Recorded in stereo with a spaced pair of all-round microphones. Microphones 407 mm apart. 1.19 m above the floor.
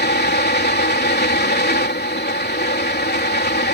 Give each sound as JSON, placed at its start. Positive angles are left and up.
{"t": 0.0, "sound": "a fan", "side_deg": 25}